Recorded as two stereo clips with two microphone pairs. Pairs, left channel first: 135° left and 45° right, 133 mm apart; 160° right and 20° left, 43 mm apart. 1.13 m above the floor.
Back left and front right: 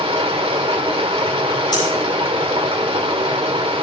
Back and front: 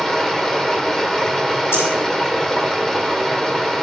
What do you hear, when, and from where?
0.0 s running water: 80° right, 1.3 m
1.7 s breathing: 165° right, 8.5 m